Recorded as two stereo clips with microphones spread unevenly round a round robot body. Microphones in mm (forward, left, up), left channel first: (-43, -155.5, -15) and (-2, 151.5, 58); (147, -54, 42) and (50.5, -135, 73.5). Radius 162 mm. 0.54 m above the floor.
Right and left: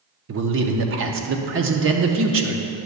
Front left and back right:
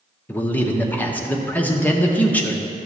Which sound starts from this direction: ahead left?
A man speaking, at 0.3 s.